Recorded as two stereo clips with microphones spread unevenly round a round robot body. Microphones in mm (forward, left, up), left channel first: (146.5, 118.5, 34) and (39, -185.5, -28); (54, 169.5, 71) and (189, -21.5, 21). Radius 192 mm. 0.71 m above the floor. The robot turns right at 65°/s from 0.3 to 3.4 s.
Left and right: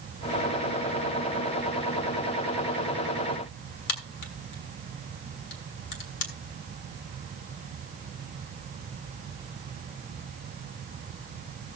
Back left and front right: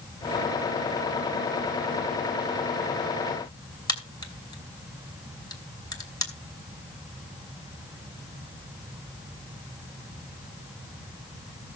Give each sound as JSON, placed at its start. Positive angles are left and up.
{"t": 3.9, "sound": "a crack", "azimuth_deg": 50, "distance_m": 3.0}